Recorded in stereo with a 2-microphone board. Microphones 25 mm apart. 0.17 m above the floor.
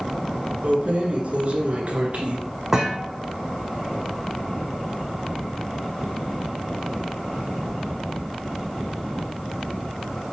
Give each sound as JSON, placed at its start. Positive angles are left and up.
{"t": 0.6, "sound": "keys jangling", "side_deg": -60, "distance_m": 1.6}
{"t": 2.7, "sound": "a thud", "side_deg": -20, "distance_m": 2.0}